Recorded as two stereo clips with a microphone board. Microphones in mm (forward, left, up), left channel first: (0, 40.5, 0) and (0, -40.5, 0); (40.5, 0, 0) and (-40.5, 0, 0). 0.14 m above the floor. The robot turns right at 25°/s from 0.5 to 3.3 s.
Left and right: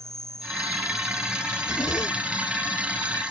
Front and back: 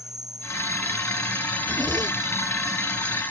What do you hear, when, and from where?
0.0 s an insect: 140° right; by 3.3 s 70° right
1.6 s a zipper: 125° left; by 2.4 s 145° left